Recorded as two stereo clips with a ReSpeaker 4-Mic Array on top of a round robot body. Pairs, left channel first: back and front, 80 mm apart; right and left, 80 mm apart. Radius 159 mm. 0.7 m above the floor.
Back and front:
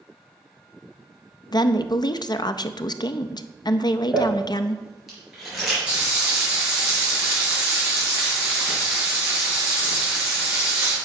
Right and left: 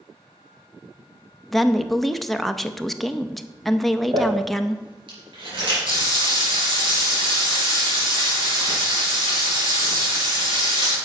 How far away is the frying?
About 5 m.